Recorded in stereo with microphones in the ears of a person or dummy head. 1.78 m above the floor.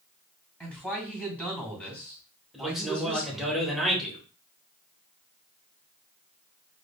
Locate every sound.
0.6 s a man speaking: 5° left (ahead or behind), 2.5 m
2.5 s a man speaking: centre (ahead or behind), 1.3 m